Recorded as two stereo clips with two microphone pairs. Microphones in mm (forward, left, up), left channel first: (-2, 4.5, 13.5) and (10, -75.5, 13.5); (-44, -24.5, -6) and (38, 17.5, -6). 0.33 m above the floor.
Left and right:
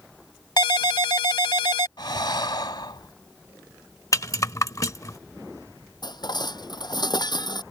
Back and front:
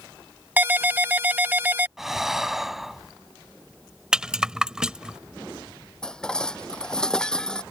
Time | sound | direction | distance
0.6 | a ringtone | 95° left | ?
2.0 | breathing | 115° left | ?
4.1 | a rattle | 105° left | ?
6.0 | dishes clattering | 125° left | ?